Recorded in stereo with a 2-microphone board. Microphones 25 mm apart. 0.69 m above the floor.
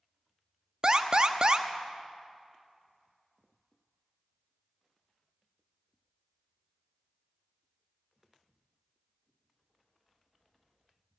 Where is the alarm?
40° right (ahead or behind), 0.7 m.